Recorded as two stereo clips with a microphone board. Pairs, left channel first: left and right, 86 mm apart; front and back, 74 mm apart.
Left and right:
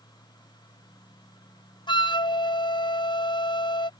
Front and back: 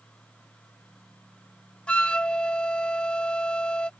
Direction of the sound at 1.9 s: 75° left.